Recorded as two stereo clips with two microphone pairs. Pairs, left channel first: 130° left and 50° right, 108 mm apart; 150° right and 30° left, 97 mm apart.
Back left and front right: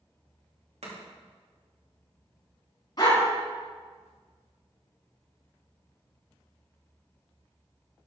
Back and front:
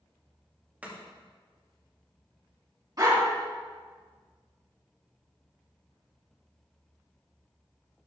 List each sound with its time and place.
0.8 s chopping: 45° right, 2.5 m
3.0 s a dog barking: 80° left, 4 m